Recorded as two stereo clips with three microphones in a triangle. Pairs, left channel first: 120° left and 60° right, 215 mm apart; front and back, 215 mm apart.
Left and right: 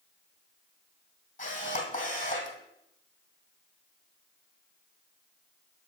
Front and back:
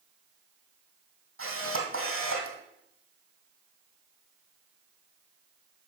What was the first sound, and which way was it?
A camera shutter, 175° left.